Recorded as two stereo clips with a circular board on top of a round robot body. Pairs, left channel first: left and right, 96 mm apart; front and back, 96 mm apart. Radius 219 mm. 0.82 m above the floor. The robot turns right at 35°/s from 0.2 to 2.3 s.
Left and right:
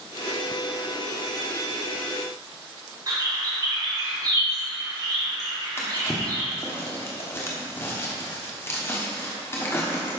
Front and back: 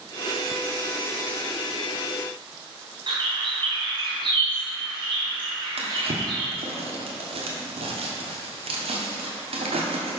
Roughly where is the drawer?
Behind left.